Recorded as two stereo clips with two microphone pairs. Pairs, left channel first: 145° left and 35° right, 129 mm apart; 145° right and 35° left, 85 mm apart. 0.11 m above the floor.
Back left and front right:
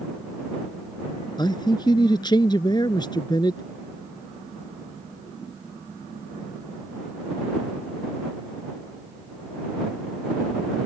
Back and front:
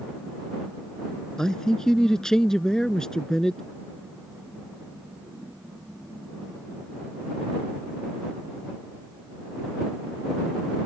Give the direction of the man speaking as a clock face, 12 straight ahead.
7 o'clock.